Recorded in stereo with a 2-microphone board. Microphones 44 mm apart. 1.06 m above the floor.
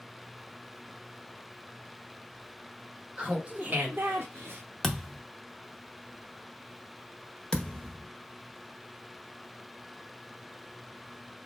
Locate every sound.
3.2 s laughter: 25° right (ahead or behind), 1.3 m; by 4.6 s 65° right (ahead or behind), 0.6 m
4.8 s a thud: 10° left (ahead or behind), 0.6 m
7.5 s a thud: 20° left (ahead or behind), 0.8 m